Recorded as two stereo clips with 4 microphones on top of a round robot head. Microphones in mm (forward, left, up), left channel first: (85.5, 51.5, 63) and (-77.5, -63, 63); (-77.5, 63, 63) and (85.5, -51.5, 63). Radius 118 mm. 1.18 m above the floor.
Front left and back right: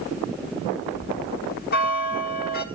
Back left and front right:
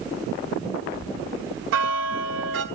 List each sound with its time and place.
0.9 s a bell: 10° right, 1.5 m